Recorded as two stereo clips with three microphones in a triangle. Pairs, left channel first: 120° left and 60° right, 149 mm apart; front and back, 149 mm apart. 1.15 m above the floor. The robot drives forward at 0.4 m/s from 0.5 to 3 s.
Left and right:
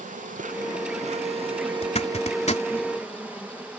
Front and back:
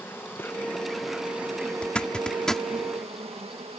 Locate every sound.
0.0 s an insect: 75° right; by 3.8 s 140° right
1.8 s a zipper: 80° left; by 2.6 s 85° left